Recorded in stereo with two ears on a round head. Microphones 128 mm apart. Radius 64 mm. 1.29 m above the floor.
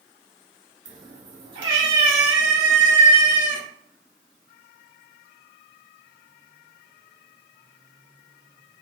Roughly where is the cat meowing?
Right.